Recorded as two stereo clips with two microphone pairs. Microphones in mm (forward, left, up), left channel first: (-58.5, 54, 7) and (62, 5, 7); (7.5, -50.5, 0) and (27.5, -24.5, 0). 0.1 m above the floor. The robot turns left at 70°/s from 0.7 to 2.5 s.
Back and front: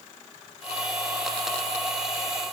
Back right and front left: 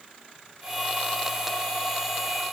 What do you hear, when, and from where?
Only background noise.